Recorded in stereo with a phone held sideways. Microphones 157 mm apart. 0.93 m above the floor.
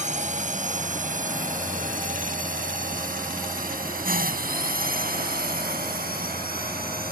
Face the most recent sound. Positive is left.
turn(degrees=-75)  # may be behind; listen again after turning